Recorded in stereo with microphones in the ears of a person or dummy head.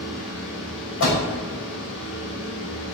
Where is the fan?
80° left, 5 m.